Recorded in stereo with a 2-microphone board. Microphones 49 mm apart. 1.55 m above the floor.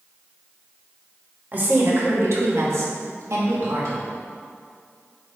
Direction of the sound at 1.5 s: 40° right (ahead or behind).